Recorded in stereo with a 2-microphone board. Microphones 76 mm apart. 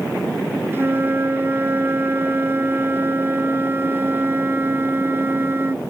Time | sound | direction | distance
0.7 | a flute | 30° right (ahead or behind) | ?